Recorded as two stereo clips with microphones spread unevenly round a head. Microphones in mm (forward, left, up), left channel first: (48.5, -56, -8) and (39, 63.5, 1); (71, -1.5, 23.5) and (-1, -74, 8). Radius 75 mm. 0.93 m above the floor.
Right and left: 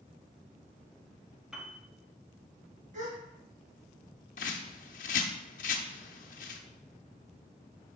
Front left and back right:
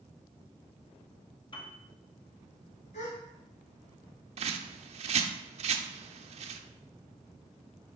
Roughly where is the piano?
Ahead.